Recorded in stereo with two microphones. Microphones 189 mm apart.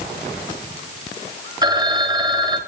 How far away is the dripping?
No dripping in this recording.